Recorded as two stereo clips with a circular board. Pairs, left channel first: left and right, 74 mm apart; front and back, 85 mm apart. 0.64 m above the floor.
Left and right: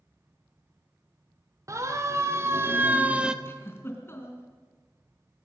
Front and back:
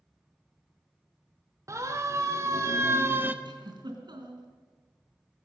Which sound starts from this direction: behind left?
A giggle, at 3.5 s.